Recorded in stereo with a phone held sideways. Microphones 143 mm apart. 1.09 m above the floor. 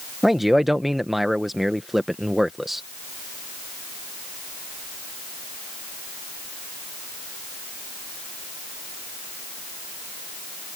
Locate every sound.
0.2 s a man speaking: centre (ahead or behind)